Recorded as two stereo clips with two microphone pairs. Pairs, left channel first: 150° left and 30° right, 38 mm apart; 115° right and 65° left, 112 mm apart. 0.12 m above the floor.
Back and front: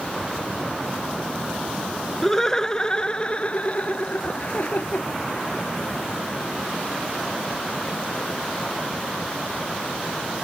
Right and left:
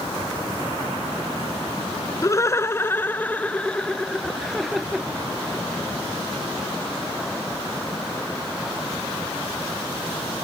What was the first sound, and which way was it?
Laughter, 140° right.